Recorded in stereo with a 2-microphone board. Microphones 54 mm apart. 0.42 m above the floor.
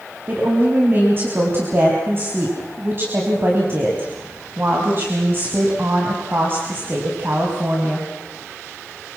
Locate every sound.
0.3 s a woman speaking: 40° right (ahead or behind), 3.5 m